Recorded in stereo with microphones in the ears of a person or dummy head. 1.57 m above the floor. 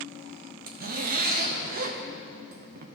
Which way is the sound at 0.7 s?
50° right (ahead or behind).